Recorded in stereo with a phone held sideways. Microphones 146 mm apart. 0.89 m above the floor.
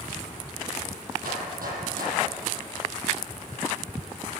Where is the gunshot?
85° right, 7 m.